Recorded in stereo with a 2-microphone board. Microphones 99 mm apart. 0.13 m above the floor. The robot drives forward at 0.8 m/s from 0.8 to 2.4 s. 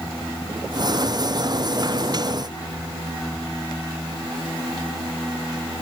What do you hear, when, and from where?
Only background noise.